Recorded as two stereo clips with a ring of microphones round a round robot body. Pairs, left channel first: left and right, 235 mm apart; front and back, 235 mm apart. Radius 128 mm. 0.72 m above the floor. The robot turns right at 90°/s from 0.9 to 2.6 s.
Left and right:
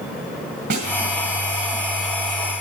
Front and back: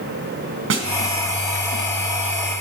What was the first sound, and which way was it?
A snare drum, 145° right.